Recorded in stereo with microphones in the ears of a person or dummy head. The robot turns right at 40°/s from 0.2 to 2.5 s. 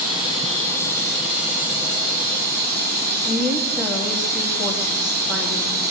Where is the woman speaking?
10° right (ahead or behind), 2 m.